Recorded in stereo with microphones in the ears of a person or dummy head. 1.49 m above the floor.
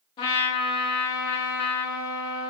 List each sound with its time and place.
0.2 s a trumpet: 25° left (ahead or behind), 0.7 m